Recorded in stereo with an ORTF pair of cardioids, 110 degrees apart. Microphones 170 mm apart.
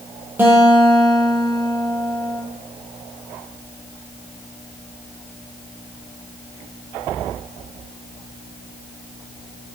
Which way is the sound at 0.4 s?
10° right.